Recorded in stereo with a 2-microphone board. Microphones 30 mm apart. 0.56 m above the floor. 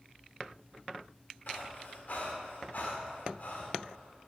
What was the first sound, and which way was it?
Breathing, 65° left (ahead or behind).